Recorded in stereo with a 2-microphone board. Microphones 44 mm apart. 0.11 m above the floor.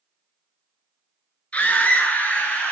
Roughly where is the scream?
Left.